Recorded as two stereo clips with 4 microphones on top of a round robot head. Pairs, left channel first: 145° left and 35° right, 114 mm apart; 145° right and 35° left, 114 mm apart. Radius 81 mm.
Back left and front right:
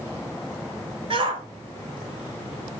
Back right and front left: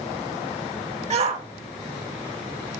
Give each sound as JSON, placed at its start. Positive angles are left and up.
{"t": 1.1, "sound": "a shout", "azimuth_deg": 10, "distance_m": 2.5}